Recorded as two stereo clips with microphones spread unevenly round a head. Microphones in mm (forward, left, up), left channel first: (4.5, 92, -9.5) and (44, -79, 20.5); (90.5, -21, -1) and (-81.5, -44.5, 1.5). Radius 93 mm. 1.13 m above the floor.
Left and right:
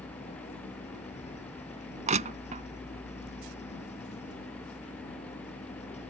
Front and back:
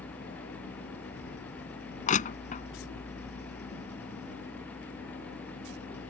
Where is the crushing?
35° right.